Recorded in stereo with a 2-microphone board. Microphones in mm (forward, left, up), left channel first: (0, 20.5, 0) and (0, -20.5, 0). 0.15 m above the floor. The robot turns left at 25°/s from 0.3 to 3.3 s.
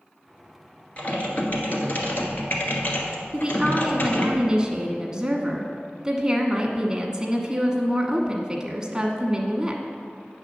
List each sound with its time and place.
1.0 s typing on a keyboard: 140° left, 1.4 m; by 4.3 s 80° left, 1.4 m
3.3 s a woman speaking: 20° right (ahead or behind), 1.0 m